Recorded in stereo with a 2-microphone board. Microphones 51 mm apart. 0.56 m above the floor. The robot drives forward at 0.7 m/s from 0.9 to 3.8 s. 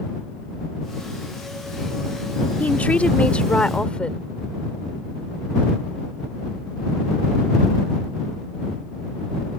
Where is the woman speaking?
30° left (ahead or behind); by 4.3 s 20° left (ahead or behind).